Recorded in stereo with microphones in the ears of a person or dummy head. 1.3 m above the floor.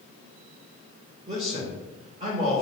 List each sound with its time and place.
1.3 s a man speaking: 25° right (ahead or behind), 1.6 m